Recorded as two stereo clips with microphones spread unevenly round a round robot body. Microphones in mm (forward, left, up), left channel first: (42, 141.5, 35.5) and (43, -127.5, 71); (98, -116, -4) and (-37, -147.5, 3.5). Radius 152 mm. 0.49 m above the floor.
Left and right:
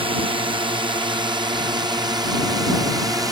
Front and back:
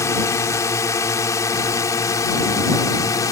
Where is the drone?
30° right; by 3.3 s 15° right.